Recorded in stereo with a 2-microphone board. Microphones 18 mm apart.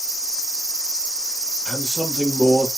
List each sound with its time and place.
1.6 s a man speaking: centre (ahead or behind), 2 m